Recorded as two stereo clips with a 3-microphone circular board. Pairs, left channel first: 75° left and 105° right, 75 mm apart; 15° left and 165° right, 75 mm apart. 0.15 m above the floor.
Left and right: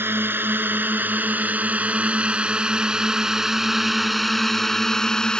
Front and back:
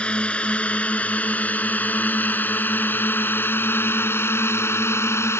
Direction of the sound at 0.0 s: 55° right.